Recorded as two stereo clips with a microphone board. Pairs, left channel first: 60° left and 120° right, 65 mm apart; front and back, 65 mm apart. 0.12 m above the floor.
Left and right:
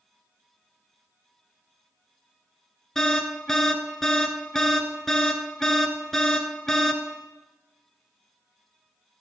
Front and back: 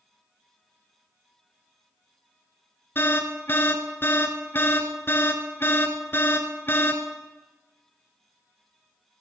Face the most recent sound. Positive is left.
turn(degrees=-20)